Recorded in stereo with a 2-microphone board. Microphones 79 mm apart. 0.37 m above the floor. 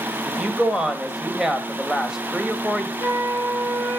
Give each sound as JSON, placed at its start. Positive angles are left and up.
{"t": 0.3, "sound": "a woman speaking", "side_deg": -5, "distance_m": 1.8}
{"t": 3.0, "sound": "a flute", "side_deg": -65, "distance_m": 7.0}